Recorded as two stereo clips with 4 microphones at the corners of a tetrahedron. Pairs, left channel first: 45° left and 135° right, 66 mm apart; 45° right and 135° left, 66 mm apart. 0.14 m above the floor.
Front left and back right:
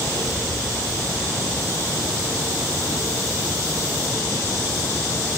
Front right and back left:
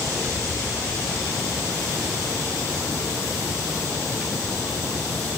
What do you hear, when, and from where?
Only background noise.